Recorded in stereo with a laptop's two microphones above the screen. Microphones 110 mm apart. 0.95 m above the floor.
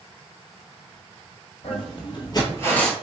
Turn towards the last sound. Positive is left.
turn(degrees=5)  # may be behind; listen again after turning